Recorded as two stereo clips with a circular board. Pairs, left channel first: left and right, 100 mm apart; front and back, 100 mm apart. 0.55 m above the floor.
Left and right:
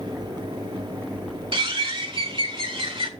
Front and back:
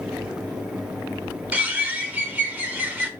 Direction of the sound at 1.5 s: 110° right.